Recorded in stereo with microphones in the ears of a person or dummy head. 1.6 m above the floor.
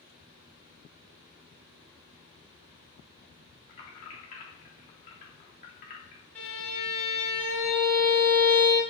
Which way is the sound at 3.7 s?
35° left (ahead or behind).